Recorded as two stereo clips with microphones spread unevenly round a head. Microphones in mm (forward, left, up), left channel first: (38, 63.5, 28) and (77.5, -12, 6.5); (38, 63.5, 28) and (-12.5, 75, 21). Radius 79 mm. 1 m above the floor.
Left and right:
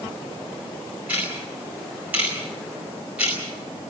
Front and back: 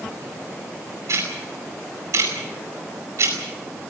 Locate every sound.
1.1 s ticking: 145° right, 5 m